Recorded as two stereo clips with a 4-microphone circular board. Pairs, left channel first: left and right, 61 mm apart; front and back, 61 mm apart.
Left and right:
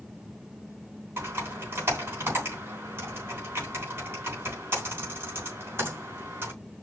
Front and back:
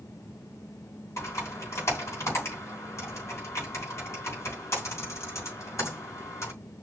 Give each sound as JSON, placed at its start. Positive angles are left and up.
{"t": 1.2, "sound": "typing on a keyboard", "azimuth_deg": -40, "distance_m": 4.0}